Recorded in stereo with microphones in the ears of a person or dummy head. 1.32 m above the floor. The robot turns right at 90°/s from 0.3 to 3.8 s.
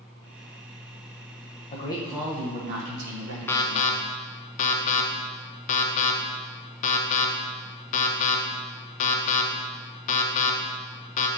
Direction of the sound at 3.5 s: 10° left (ahead or behind).